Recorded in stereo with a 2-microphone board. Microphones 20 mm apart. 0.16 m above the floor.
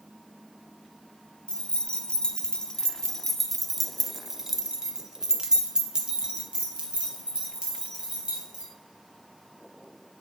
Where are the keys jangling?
50° left (ahead or behind), 1.4 m; by 8.7 s 70° right (ahead or behind), 3 m.